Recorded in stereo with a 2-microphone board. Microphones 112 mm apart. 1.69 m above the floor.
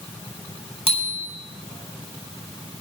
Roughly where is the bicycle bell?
Left.